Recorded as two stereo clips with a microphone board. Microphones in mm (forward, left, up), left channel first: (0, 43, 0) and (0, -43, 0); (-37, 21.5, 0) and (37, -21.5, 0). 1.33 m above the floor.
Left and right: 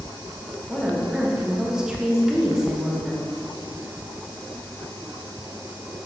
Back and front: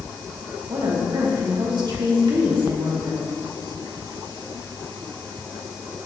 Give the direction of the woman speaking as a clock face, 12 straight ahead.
12 o'clock.